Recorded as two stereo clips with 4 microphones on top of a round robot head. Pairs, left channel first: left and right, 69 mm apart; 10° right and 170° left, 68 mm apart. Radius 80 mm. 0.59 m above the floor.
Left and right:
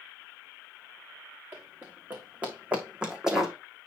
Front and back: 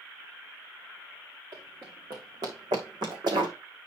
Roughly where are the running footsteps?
Behind right.